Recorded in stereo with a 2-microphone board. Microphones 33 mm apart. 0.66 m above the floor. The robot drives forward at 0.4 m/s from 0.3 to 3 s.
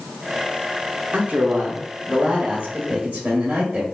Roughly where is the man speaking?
Right.